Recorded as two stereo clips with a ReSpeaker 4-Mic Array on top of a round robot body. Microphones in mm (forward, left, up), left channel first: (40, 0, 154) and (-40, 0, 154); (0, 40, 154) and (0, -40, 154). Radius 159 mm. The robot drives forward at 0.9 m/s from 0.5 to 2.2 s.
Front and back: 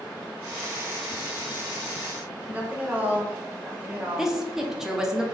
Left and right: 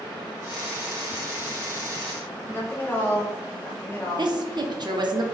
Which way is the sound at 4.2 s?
95° right.